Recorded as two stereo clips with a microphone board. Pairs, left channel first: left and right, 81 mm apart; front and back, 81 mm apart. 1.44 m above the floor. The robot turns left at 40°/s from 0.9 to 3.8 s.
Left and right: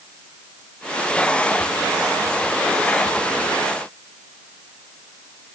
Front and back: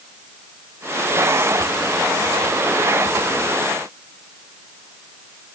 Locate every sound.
Only background noise.